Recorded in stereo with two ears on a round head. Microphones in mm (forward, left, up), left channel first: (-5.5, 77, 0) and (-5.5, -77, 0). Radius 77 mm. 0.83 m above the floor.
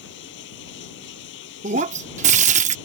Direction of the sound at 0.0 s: 80° left.